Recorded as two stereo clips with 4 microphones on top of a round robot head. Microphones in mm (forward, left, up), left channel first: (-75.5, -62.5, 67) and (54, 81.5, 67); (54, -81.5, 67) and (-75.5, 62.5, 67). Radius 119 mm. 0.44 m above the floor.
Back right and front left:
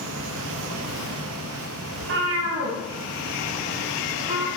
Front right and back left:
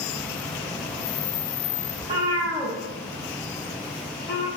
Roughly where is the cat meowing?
Ahead left.